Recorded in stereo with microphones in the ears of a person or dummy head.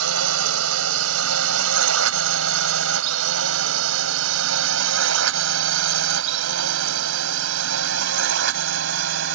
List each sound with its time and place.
0.0 s a drone: 80° right; by 9.3 s 75° right (ahead or behind)